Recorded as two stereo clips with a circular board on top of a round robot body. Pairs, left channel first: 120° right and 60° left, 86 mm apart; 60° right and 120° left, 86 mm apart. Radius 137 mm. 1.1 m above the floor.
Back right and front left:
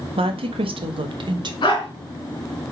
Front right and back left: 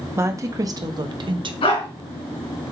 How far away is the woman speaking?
About 1.5 m.